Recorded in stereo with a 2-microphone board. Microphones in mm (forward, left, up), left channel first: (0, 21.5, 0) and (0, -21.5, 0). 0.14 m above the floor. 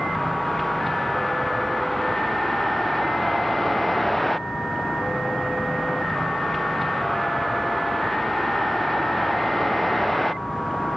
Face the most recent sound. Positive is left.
turn(degrees=0)  # may be behind; listen again after turning